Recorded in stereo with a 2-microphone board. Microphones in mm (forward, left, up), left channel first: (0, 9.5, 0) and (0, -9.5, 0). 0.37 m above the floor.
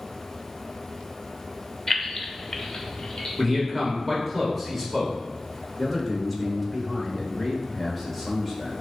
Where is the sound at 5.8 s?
5° right (ahead or behind), 1.1 m.